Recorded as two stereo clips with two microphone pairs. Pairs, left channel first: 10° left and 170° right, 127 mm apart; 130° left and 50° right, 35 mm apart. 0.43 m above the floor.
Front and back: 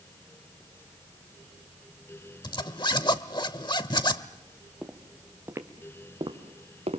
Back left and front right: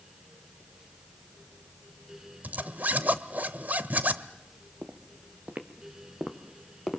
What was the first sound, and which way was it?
A zipper, 35° right.